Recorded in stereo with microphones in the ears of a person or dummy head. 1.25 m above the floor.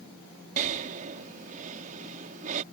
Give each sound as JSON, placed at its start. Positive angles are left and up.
{"t": 0.6, "sound": "breathing", "side_deg": -40}